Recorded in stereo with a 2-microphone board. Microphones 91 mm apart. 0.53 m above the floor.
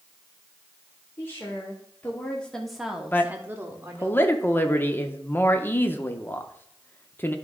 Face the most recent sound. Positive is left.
turn(degrees=25)  # may be behind; listen again after turning